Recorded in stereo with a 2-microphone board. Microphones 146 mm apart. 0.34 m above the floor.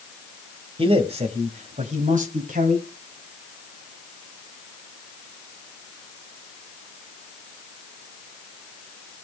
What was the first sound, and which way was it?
A man speaking, 40° right (ahead or behind).